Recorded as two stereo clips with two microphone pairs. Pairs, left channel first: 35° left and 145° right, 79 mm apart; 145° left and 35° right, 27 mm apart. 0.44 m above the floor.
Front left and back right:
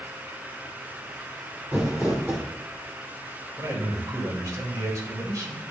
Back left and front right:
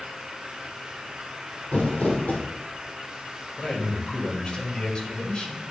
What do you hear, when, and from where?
1.7 s crumpling: 145° left, 2.5 m
3.6 s a man speaking: 175° right, 1.9 m